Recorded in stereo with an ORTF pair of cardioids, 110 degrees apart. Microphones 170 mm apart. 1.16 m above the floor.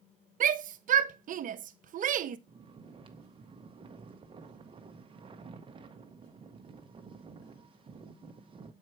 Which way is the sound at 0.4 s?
50° right.